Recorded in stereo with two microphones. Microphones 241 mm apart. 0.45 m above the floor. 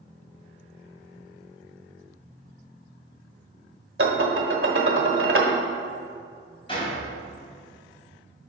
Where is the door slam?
20° left (ahead or behind), 2.5 m.